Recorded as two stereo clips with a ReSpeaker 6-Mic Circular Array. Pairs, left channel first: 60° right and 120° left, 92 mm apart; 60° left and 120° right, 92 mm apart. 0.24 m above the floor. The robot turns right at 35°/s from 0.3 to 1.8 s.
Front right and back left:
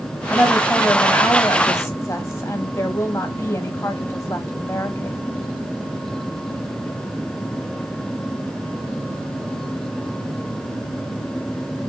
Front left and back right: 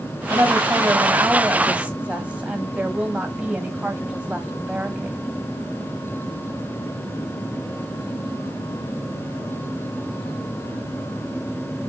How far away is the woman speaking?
About 1.2 m.